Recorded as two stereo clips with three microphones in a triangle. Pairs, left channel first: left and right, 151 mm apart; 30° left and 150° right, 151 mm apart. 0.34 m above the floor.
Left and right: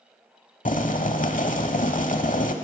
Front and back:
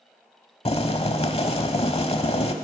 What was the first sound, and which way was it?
Boiling, 75° left.